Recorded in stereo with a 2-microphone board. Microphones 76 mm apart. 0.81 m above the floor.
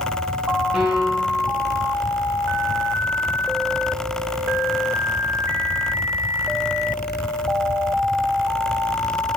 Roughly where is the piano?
Centre.